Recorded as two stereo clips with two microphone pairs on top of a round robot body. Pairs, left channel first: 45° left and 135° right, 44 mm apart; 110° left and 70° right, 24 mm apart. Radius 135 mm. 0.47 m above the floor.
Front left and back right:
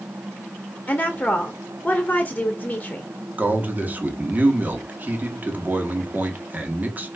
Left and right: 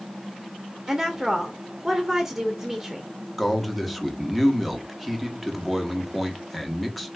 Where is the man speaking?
175° right, 1.3 m.